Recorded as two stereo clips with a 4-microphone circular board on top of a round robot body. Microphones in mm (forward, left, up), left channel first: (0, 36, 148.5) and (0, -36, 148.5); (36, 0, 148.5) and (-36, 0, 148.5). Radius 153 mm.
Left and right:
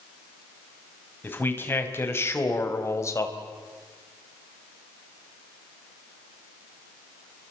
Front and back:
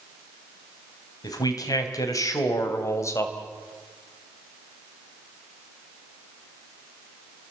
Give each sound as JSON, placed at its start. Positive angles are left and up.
{"t": 1.2, "sound": "a man speaking", "azimuth_deg": 30, "distance_m": 4.0}